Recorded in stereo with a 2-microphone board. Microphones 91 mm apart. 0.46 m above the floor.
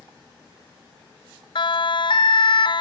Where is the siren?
65° left (ahead or behind).